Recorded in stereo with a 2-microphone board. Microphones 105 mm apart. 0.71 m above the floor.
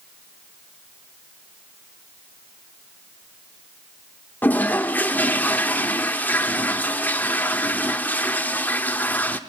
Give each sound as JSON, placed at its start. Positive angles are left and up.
{"t": 4.4, "sound": "a toilet flushing", "side_deg": 15, "distance_m": 1.2}